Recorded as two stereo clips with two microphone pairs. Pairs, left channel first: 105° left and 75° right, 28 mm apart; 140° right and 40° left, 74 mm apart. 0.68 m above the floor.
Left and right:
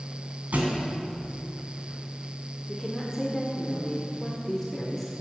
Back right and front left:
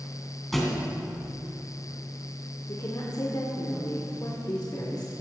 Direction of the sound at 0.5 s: 55° right.